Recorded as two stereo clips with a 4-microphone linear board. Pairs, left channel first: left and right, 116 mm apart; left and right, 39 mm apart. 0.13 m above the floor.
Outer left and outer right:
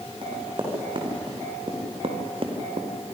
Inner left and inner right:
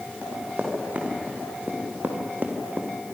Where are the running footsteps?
45° right (ahead or behind), 6.5 m; by 2.9 s 55° right (ahead or behind), 2.5 m.